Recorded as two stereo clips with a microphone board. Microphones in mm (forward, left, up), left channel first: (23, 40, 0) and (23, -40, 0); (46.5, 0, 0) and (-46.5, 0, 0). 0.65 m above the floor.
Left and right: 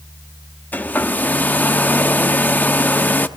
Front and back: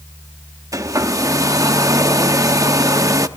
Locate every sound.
0.7 s a hair dryer: 145° left, 0.9 m